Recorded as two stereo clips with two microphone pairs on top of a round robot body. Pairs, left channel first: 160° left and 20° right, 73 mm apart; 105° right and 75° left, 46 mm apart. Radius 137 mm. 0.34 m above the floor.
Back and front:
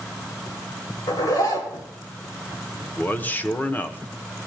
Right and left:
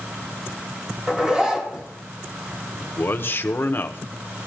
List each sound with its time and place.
1.1 s a zipper: 140° left, 3 m
2.8 s a man speaking: 125° right, 1.1 m